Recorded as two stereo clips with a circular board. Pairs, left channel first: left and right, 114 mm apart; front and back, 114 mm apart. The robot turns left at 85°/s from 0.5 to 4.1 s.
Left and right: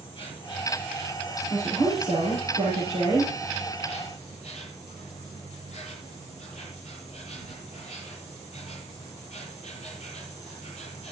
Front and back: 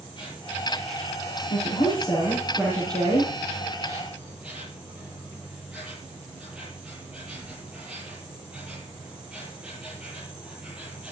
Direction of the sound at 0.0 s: 45° left.